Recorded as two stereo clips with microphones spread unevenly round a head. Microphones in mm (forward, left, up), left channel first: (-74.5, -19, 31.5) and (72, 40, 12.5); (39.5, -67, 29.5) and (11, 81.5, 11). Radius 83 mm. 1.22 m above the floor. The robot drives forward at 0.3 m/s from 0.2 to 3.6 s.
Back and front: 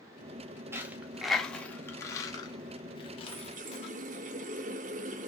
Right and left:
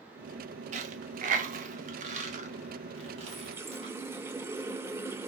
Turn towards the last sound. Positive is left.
turn(degrees=25)